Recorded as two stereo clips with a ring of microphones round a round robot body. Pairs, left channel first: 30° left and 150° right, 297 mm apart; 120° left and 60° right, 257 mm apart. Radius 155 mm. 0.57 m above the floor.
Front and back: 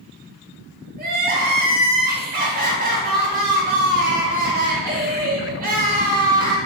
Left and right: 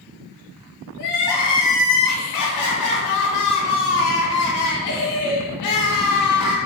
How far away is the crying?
About 0.6 m.